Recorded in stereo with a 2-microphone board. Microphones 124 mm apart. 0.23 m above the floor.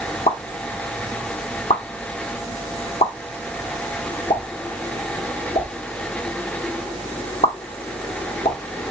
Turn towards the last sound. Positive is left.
turn(degrees=60)  # may be behind; listen again after turning